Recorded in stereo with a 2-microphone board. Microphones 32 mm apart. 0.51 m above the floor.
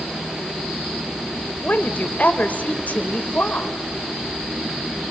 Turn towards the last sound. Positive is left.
turn(degrees=50)  # may be behind; listen again after turning